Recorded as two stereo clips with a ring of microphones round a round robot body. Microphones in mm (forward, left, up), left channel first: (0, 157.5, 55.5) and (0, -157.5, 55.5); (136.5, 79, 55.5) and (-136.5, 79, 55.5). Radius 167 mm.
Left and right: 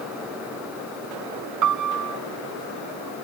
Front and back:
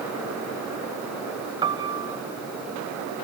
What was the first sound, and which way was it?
A piano, 105° right.